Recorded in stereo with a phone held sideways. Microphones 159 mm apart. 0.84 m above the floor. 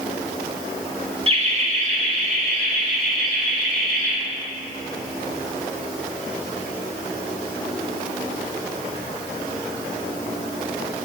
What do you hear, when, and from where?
1.3 s laughter: 35° right (ahead or behind), 1.5 m; by 4.1 s 60° right (ahead or behind), 5 m